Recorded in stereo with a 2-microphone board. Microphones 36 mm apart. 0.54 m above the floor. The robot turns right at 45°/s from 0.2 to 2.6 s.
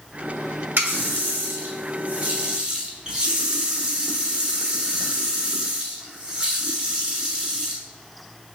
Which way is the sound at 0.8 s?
105° right.